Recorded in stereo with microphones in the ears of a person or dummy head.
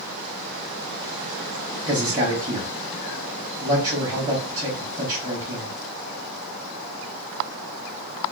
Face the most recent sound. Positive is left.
turn(degrees=-20)  # may be behind; listen again after turning